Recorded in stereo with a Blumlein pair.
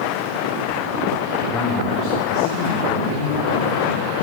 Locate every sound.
1.5 s a man speaking: 15° left, 0.9 m; by 4.1 s 70° left, 1.9 m